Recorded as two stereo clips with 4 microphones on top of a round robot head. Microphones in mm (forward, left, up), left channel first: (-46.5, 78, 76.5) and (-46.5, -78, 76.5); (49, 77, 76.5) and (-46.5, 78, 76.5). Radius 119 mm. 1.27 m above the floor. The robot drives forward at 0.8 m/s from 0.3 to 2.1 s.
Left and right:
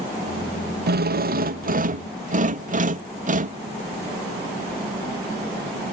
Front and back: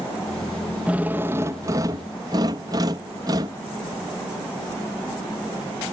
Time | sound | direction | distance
0.9 | a drill | 100° right | ?